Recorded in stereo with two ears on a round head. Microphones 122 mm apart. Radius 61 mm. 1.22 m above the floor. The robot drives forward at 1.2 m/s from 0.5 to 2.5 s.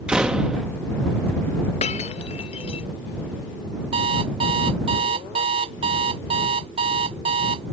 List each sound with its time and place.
0.1 s a door slam: 5° right (ahead or behind)
1.8 s breaking glass: 50° left (ahead or behind); by 2.9 s 45° left (ahead or behind)
3.9 s an alarm clock: 45° right (ahead or behind)